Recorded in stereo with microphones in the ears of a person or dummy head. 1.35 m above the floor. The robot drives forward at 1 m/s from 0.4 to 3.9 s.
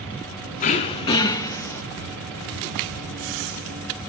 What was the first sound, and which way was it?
Throat clearing, 35° left (ahead or behind).